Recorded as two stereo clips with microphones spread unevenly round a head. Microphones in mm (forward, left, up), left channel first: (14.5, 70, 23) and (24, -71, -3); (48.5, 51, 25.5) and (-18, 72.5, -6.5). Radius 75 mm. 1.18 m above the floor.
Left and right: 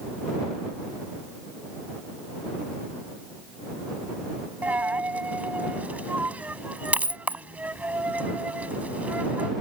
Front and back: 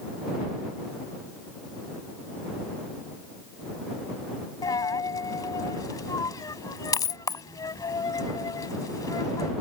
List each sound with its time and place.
4.6 s a dropped coin: 5° right